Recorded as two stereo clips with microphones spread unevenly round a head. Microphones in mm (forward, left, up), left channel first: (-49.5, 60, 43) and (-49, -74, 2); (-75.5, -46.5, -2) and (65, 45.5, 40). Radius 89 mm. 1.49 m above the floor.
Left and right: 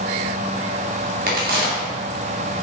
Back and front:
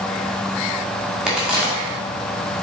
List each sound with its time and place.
1.3 s a crack: 45° right, 2 m